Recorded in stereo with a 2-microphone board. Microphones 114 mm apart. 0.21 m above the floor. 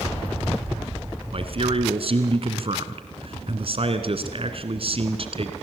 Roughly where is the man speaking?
Right.